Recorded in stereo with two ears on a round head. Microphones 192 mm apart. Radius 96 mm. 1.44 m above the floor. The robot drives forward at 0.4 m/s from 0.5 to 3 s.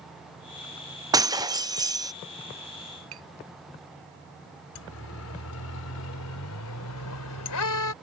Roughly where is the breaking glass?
Centre.